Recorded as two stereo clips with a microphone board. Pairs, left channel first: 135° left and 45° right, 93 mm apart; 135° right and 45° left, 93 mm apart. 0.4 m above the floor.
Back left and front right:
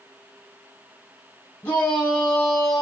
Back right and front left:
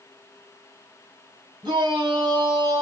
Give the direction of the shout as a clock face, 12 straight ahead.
9 o'clock.